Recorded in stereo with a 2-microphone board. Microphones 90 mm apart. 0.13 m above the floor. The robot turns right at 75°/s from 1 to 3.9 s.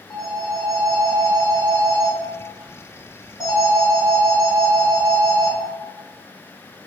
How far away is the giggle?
I don't hear a giggle.